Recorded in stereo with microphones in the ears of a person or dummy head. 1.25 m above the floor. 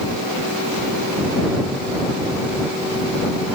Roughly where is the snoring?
No snoring in this recording.